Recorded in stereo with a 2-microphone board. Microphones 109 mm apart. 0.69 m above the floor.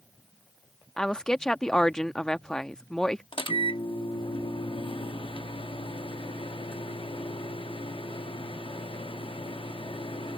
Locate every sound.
1.0 s a woman speaking: 5° left (ahead or behind)
3.3 s a microwave: 55° left (ahead or behind)